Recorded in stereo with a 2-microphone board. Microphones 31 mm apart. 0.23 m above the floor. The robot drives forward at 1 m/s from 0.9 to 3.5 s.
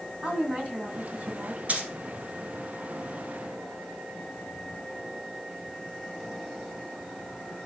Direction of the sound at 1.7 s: 50° right (ahead or behind).